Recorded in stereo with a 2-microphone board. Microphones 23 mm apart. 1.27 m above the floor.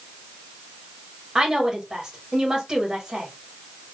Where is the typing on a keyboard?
I don't hear typing on a keyboard.